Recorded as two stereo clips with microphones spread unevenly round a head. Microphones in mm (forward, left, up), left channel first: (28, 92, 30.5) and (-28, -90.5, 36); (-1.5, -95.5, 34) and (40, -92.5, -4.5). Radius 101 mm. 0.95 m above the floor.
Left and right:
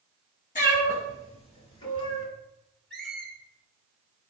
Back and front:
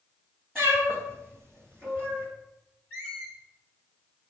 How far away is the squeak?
About 1.7 m.